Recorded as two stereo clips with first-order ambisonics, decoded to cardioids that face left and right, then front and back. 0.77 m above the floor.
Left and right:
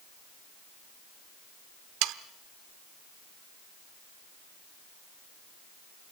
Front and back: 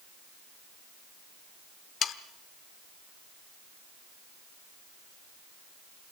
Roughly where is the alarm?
I don't hear an alarm.